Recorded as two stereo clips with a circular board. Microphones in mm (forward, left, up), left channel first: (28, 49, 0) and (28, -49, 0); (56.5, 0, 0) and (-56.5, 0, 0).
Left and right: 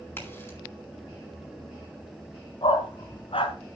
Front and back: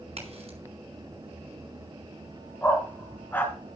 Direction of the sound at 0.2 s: 155° left.